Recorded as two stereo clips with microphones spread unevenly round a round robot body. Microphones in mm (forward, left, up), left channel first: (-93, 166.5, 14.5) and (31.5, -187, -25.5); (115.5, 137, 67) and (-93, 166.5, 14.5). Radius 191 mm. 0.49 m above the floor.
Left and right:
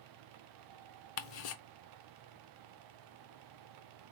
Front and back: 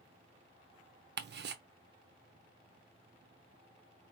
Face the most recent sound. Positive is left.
turn(degrees=165)